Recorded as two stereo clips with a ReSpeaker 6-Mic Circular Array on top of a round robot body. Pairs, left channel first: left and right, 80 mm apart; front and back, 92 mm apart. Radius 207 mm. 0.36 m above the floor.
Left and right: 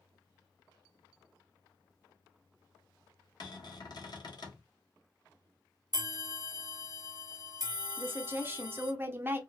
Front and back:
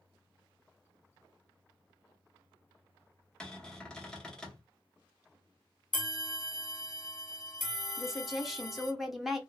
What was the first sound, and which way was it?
A cupboard door, 80° left.